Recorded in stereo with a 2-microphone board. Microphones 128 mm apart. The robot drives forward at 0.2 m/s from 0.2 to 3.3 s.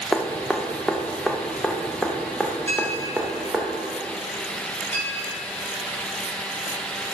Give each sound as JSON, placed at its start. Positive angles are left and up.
{"t": 0.1, "sound": "dripping", "side_deg": 5, "distance_m": 0.8}
{"t": 2.7, "sound": "a clink", "side_deg": 15, "distance_m": 3.0}